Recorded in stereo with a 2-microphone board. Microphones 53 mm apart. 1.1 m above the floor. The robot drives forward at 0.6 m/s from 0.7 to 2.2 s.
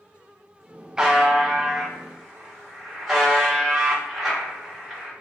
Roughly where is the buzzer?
Centre.